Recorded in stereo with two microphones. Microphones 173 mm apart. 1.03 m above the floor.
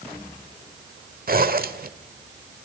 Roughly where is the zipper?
Right.